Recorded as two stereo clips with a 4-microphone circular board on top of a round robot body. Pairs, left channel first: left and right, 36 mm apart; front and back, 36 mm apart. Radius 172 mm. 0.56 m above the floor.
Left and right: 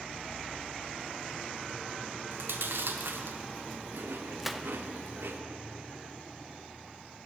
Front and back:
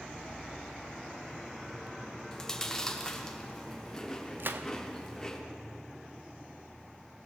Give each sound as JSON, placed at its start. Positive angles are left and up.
{"t": 2.3, "sound": "chewing", "azimuth_deg": -75, "distance_m": 0.9}
{"t": 4.4, "sound": "a gunshot", "azimuth_deg": -175, "distance_m": 0.7}